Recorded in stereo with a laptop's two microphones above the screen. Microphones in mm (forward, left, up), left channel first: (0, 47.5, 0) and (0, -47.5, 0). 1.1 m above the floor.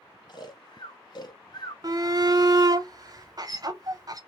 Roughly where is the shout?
Right.